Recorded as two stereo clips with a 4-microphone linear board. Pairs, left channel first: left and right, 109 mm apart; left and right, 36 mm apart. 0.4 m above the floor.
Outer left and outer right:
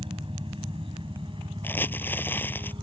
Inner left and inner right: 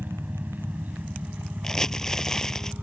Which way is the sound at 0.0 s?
55° right (ahead or behind).